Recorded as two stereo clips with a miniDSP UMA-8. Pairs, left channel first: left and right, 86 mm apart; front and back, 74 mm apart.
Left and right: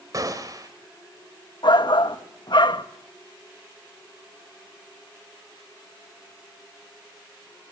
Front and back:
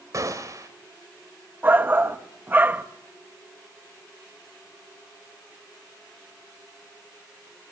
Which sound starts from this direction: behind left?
A shout, at 1.6 s.